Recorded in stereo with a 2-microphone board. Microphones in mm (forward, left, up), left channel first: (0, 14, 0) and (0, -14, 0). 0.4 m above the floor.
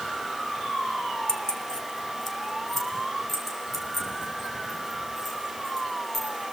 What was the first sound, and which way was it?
Keys jangling, 35° left (ahead or behind).